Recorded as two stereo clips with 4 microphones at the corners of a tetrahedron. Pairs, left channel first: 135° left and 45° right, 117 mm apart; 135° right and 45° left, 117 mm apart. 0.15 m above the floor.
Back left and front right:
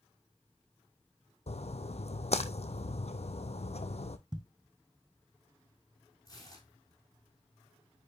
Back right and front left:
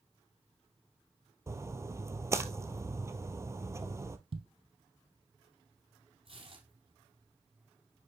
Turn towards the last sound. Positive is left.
turn(degrees=75)